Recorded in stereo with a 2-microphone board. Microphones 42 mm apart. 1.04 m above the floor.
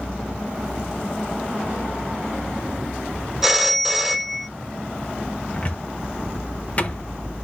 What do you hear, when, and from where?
3.4 s a phone ringing: 10° right (ahead or behind), 0.5 m
5.5 s a cupboard door: 35° left (ahead or behind), 0.5 m